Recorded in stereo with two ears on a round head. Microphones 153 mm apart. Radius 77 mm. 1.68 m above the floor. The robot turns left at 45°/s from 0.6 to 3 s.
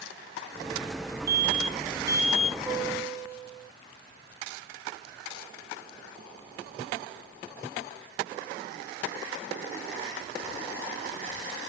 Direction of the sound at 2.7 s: 5° left (ahead or behind).